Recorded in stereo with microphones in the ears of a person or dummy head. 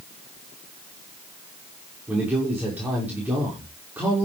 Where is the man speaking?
15° right (ahead or behind), 6 m.